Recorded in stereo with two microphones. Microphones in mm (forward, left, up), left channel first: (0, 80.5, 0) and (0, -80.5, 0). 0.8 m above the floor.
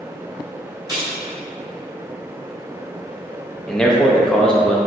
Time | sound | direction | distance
0.9 | keys jangling | 25° right (ahead or behind) | 1.9 m
3.7 | a man speaking | 5° left (ahead or behind) | 0.6 m